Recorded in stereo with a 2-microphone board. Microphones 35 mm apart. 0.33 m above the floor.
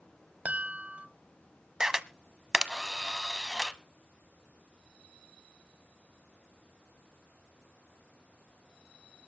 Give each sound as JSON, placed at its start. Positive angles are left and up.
{"t": 0.5, "sound": "a chime", "side_deg": -50, "distance_m": 1.2}
{"t": 1.8, "sound": "a camera shutter", "side_deg": -15, "distance_m": 0.8}